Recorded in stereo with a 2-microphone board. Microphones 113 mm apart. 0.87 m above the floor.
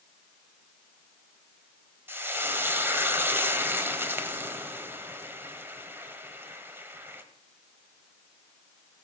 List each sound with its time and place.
2.1 s frying: 20° right (ahead or behind), 1.3 m